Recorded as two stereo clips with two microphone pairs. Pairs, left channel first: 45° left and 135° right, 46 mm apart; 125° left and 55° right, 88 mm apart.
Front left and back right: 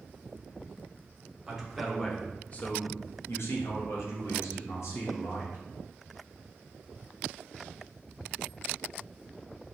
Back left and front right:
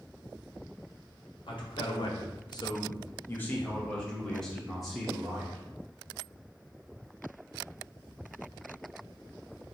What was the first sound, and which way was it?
A man speaking, 140° left.